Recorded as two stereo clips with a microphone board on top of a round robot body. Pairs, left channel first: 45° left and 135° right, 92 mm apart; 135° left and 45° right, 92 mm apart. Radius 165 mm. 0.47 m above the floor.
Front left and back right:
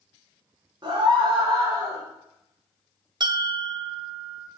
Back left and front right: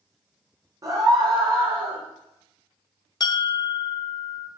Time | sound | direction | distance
0.8 | a scream | 90° right | 4 m
3.2 | a bell | straight behind | 0.8 m